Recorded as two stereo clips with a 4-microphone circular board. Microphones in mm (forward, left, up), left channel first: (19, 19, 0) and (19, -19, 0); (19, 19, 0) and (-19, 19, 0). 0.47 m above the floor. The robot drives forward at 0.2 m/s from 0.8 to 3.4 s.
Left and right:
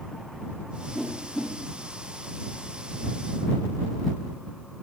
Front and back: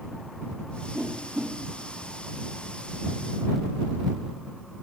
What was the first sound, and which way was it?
A whoosh, 175° right.